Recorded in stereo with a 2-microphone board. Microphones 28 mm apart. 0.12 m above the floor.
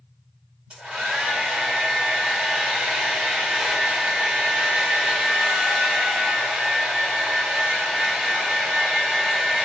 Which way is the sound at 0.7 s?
35° right (ahead or behind).